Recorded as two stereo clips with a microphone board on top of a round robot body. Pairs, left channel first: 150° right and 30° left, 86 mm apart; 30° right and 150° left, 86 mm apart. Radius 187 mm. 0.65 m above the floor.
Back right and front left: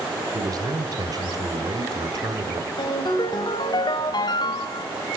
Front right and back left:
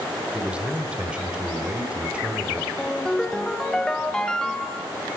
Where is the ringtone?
110° right, 1.6 m.